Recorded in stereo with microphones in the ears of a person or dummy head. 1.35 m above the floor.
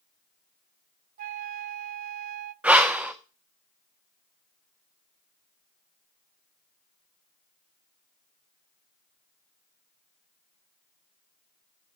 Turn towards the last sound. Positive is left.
turn(degrees=-5)  # may be behind; listen again after turning